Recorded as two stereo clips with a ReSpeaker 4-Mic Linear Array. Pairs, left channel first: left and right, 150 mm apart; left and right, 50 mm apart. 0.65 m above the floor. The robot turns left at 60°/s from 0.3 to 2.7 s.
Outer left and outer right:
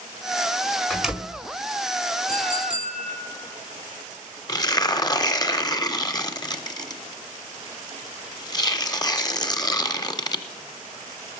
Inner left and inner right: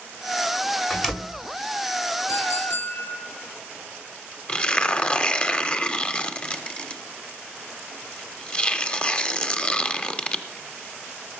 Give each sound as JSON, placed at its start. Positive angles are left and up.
{"t": 0.9, "sound": "a door slam", "side_deg": 5, "distance_m": 1.8}
{"t": 2.3, "sound": "a clink", "side_deg": 85, "distance_m": 7.0}
{"t": 4.5, "sound": "tearing paper", "side_deg": 30, "distance_m": 0.8}